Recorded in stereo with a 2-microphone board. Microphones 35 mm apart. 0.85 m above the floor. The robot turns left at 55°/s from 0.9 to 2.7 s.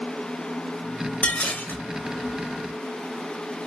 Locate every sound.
1.2 s dishes clattering: 140° left, 1.1 m; by 1.8 s 110° left, 1.1 m